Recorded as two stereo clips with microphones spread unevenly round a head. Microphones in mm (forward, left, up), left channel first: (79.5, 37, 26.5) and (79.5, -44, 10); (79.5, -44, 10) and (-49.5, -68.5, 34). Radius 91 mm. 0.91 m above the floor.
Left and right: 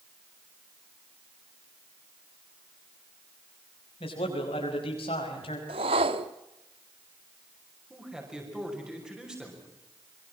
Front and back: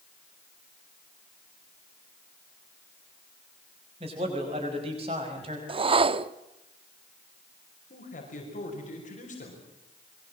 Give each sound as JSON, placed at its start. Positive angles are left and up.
{"t": 4.0, "sound": "a man speaking", "azimuth_deg": 130, "distance_m": 5.5}
{"t": 5.7, "sound": "a whoosh", "azimuth_deg": -125, "distance_m": 0.7}
{"t": 7.9, "sound": "a man speaking", "azimuth_deg": -10, "distance_m": 5.5}